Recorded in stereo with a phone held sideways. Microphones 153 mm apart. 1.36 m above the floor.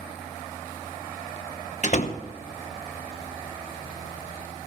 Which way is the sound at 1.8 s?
50° left (ahead or behind).